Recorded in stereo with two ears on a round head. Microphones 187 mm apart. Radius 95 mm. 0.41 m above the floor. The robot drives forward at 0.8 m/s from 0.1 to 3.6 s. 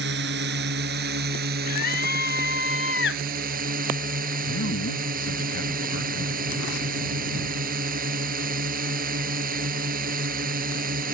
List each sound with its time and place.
0.0 s a drone: 60° right (ahead or behind); by 11.1 s 45° right (ahead or behind)
1.7 s a scream: 45° left (ahead or behind); by 3.2 s 60° left (ahead or behind)
4.5 s a man speaking: 60° left (ahead or behind)